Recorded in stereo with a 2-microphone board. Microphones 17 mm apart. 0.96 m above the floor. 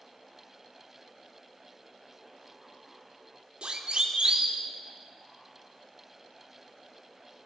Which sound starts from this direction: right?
A siren, at 3.6 s.